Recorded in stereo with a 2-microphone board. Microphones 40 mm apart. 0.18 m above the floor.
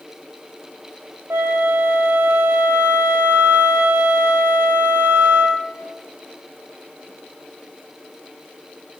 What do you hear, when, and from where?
1.3 s a flute: 80° right, 0.8 m